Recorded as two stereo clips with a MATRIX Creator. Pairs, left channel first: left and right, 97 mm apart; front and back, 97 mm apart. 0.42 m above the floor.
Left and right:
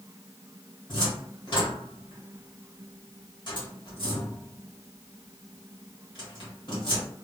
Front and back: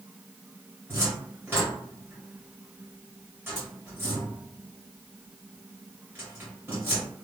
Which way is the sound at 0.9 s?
115° left.